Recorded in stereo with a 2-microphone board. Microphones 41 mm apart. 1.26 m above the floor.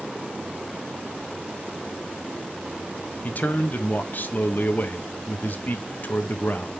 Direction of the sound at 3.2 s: 45° left (ahead or behind).